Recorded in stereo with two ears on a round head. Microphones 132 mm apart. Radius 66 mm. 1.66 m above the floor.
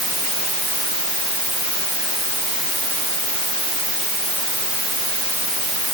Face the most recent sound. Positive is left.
No sound to turn to.